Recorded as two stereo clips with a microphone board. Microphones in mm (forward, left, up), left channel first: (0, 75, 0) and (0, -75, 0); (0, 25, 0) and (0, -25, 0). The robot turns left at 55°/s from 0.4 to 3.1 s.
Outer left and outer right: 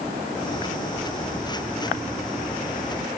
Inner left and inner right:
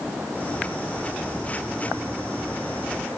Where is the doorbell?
No doorbell in this recording.